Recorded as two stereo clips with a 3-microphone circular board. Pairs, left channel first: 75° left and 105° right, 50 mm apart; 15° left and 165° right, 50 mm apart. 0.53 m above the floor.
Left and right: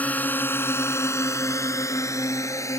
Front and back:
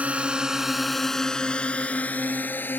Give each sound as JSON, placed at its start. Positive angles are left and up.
{"t": 0.0, "sound": "a drone", "azimuth_deg": 135}